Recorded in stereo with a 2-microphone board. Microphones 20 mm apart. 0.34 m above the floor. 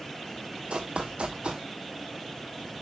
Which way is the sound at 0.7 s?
75° right (ahead or behind).